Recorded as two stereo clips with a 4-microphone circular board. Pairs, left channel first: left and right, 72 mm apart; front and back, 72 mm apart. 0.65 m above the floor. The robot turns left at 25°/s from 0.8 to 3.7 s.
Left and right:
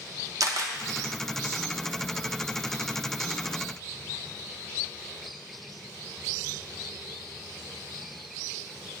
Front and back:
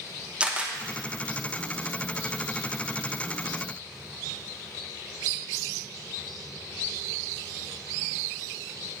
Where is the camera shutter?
110° right, 0.7 m.